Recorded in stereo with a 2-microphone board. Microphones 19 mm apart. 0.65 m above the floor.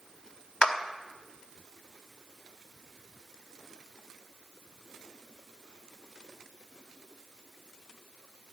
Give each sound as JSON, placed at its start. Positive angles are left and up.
{"t": 0.6, "sound": "a clap", "side_deg": 60, "distance_m": 0.6}